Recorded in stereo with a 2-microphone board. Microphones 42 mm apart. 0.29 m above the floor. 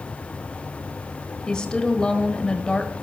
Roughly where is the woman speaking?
Centre.